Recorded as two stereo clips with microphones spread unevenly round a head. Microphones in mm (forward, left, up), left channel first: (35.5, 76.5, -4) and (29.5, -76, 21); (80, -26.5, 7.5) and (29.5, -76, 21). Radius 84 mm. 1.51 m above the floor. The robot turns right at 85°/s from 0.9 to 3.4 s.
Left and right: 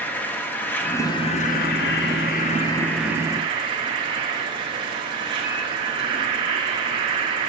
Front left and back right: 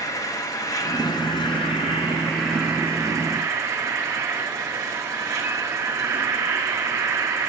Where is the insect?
5° left, 1.0 m; by 7.5 s 145° right, 1.0 m.